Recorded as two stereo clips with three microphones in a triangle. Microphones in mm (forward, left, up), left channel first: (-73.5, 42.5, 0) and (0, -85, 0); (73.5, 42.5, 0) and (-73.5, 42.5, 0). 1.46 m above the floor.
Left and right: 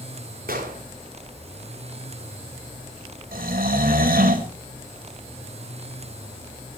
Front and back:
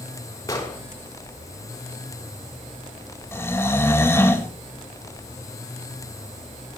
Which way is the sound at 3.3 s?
75° right.